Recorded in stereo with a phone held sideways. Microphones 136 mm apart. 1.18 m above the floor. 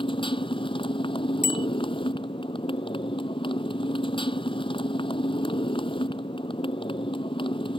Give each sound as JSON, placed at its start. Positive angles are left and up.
{"t": 0.0, "sound": "a motorcycle", "side_deg": 40}
{"t": 1.4, "sound": "a bicycle bell", "side_deg": -85}